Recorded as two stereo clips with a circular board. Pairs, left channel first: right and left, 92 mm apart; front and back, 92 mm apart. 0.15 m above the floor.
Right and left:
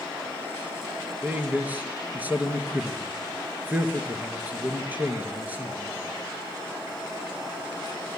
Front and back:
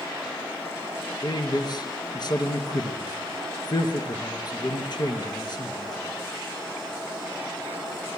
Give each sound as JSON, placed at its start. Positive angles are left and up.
{"t": 1.2, "sound": "a man speaking", "azimuth_deg": 25, "distance_m": 2.5}